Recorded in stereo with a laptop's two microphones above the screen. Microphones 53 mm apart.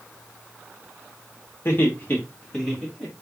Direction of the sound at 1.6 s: 50° left (ahead or behind).